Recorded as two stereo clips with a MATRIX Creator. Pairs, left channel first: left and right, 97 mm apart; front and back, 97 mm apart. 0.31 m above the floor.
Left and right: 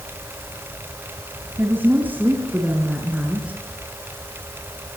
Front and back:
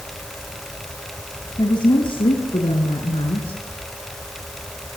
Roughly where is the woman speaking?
Ahead right.